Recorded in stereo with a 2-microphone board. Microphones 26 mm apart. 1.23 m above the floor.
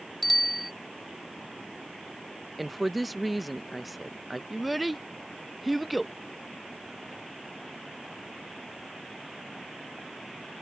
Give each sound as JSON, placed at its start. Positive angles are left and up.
{"t": 0.2, "sound": "a bicycle bell", "side_deg": 0}
{"t": 2.6, "sound": "a woman speaking", "side_deg": -5}
{"t": 4.5, "sound": "a child speaking", "side_deg": -5}